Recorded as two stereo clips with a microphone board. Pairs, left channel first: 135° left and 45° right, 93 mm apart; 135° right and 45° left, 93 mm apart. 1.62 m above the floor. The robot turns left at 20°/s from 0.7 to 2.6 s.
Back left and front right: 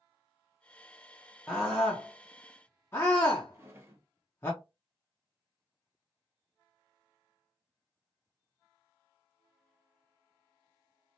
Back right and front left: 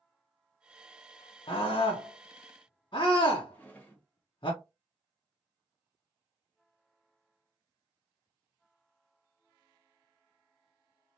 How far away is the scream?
About 0.7 m.